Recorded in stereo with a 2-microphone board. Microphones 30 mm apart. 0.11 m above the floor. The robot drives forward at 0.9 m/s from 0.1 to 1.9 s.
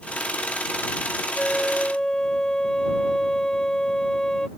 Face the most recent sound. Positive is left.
turn(degrees=25)  # may be behind; listen again after turning